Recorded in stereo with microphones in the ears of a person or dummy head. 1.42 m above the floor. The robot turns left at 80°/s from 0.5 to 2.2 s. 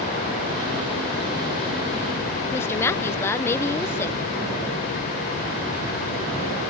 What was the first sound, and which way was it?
A woman speaking, 15° left (ahead or behind).